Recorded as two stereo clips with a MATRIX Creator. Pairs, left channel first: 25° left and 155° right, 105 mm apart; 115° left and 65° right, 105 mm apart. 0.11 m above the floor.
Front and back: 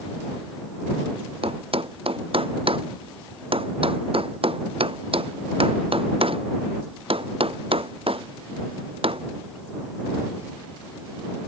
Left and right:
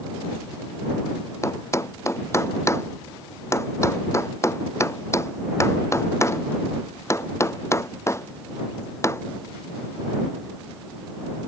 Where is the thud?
175° left.